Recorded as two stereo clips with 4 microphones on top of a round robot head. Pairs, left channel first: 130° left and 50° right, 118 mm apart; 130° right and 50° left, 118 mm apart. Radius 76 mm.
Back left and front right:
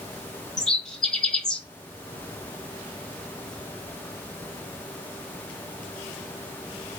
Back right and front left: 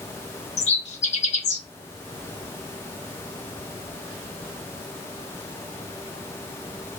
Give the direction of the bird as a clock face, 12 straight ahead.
5 o'clock.